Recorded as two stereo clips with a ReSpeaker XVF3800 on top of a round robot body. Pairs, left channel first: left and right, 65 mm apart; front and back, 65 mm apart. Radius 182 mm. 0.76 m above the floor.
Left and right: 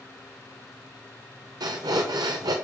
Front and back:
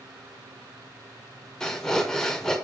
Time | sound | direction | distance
1.6 | breathing | 80° right | 0.7 m